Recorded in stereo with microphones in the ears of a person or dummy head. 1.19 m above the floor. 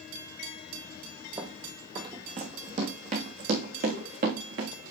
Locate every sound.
1.4 s running footsteps: 25° right (ahead or behind), 2.5 m; by 4.9 s 60° right (ahead or behind), 4 m